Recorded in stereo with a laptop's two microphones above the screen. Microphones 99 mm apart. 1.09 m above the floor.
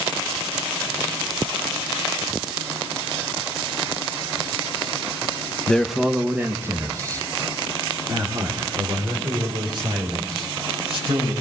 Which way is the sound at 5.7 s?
10° left (ahead or behind).